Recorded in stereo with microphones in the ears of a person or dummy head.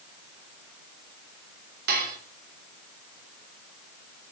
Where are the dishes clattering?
50° right (ahead or behind), 3.5 m.